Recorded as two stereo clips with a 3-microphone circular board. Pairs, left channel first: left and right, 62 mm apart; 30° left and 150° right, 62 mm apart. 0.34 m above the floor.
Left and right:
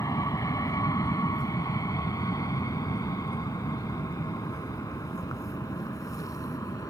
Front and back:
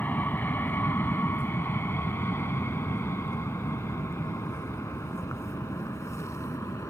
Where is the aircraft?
85° left; by 6.9 s 70° left.